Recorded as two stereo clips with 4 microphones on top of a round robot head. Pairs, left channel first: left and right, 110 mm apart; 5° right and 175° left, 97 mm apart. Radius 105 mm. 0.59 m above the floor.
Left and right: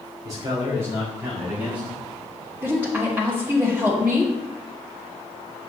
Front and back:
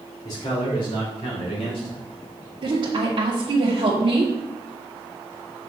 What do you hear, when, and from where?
0.2 s a man speaking: 40° right, 3 m; by 2.0 s 10° right, 4.5 m
2.6 s a woman speaking: 160° right, 1.4 m